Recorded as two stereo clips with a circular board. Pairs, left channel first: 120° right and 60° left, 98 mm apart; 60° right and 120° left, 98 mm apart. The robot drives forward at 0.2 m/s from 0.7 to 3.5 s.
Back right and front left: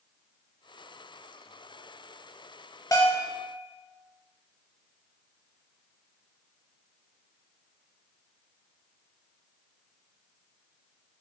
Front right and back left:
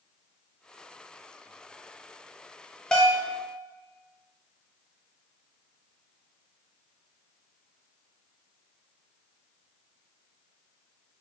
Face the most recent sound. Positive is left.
turn(degrees=-145)